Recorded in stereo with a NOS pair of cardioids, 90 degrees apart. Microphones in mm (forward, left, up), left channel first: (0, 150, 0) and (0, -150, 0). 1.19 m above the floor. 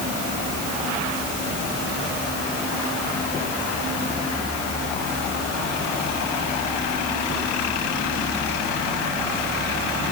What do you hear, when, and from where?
Only background noise.